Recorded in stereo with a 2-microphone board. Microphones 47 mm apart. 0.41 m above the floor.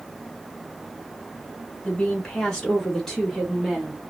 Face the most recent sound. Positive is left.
turn(degrees=-5)  # may be behind; listen again after turning